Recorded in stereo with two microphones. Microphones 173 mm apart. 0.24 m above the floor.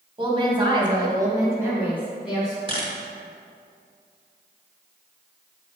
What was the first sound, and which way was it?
A woman speaking, 30° right (ahead or behind).